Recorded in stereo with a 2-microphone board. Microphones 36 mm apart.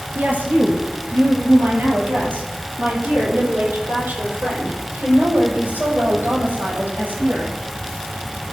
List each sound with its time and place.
0.1 s a woman speaking: 65° right (ahead or behind), 3 m; by 7.5 s 80° right, 7 m